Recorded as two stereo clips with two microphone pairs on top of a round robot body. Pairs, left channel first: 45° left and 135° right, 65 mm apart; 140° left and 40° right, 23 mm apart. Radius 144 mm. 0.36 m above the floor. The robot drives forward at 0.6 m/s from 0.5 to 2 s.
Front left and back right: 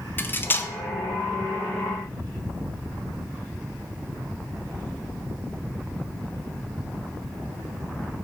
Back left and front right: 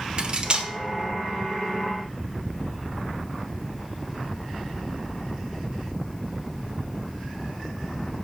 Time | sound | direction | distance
0.2 | cutlery clinking | straight ahead | 1.0 m